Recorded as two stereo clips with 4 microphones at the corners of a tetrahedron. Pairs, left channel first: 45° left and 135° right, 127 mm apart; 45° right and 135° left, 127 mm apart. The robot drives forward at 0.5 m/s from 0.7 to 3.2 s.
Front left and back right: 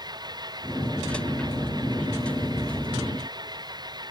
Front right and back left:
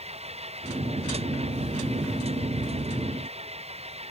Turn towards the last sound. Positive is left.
turn(degrees=170)